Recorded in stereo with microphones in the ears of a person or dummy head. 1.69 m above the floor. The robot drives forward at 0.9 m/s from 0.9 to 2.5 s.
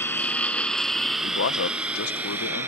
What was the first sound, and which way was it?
A lawn mower, 15° left (ahead or behind).